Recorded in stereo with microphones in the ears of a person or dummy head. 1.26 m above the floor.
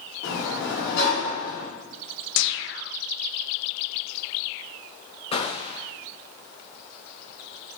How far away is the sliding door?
About 3.5 m.